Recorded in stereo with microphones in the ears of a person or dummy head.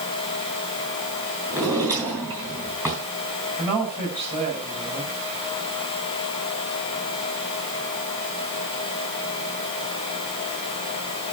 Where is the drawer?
15° right (ahead or behind), 4.5 m.